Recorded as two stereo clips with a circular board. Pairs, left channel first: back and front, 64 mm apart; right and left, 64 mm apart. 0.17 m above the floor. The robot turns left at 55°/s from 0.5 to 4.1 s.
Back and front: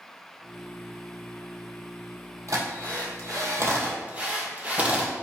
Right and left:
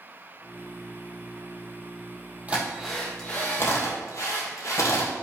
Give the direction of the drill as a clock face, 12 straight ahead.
11 o'clock.